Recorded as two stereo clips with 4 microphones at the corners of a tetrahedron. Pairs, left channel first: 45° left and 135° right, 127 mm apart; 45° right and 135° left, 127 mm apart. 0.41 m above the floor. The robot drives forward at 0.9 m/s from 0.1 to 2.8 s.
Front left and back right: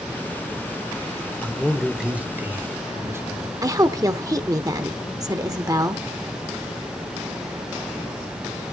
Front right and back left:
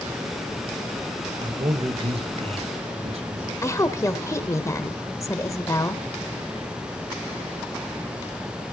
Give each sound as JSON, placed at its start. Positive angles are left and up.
{"t": 1.4, "sound": "a man speaking", "azimuth_deg": 115, "distance_m": 1.1}
{"t": 3.6, "sound": "a woman speaking", "azimuth_deg": -95, "distance_m": 0.9}